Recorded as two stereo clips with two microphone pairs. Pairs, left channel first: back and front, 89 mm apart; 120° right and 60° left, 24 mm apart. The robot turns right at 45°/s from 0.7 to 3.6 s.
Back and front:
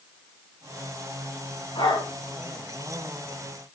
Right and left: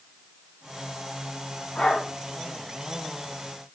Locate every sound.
1.8 s a dog barking: 165° right, 6 m; by 2.1 s 150° right, 6 m